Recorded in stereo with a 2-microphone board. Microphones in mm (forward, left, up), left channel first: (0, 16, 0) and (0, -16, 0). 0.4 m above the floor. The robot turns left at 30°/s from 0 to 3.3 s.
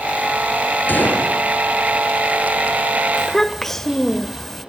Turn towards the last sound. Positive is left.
turn(degrees=10)  # may be behind; listen again after turning